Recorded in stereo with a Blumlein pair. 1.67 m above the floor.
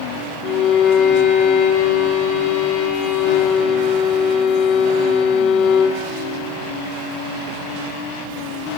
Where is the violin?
35° left, 0.9 m.